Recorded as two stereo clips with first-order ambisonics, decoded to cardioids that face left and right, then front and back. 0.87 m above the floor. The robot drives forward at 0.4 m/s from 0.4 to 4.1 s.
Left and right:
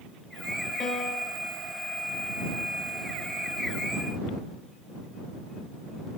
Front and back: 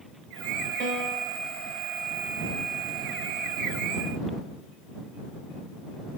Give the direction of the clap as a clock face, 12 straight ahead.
I don't hear a clap.